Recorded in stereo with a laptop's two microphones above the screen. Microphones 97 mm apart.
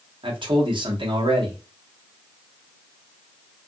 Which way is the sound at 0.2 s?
55° right (ahead or behind).